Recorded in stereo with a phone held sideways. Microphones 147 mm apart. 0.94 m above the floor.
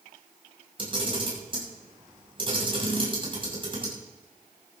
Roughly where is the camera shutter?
Right.